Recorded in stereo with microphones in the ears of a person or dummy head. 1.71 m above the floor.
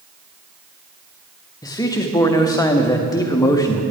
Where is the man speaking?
15° left (ahead or behind), 0.7 m.